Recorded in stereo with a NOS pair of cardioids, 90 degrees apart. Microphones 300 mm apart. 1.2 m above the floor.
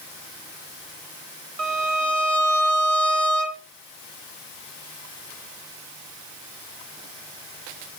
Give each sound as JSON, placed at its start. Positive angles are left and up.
{"t": 1.6, "sound": "a violin", "azimuth_deg": -60, "distance_m": 1.4}